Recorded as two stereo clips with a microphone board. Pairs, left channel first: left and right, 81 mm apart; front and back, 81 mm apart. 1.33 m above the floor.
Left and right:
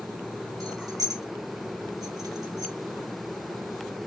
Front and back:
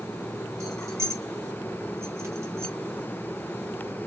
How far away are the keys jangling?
About 0.9 m.